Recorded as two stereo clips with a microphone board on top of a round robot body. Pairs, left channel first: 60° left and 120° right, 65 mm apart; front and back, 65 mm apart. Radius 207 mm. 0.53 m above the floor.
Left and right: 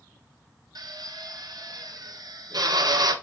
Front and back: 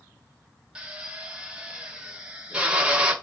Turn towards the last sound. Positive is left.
turn(degrees=-105)